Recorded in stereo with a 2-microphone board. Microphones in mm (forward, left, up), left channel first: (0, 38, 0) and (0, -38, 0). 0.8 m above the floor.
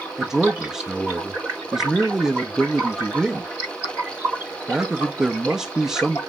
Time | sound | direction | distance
0.2 | a man speaking | 5° right (ahead or behind) | 0.6 m